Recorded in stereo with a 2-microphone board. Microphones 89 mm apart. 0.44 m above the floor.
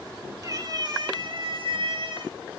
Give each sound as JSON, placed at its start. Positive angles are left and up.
{"t": 0.4, "sound": "a cat meowing", "side_deg": -40, "distance_m": 1.0}